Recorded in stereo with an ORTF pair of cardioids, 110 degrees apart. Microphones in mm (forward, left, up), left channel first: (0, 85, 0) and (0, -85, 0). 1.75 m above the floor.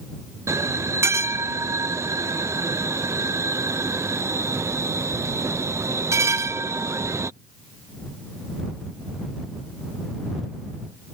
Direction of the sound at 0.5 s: 15° right.